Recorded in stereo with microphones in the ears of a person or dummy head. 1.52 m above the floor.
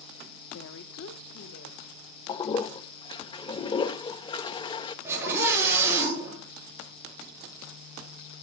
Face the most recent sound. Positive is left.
turn(degrees=-10)  # may be behind; listen again after turning